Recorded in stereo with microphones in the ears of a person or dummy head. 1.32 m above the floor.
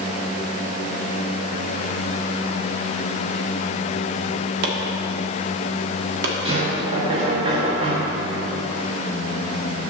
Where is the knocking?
25° right (ahead or behind), 1.8 m.